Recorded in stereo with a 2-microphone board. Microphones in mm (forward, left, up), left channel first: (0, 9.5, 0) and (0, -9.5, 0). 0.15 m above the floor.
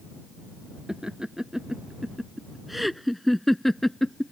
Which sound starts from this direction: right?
Laughter, at 0.9 s.